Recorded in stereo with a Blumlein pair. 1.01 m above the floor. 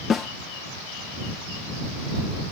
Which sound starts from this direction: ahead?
A snare drum, at 0.1 s.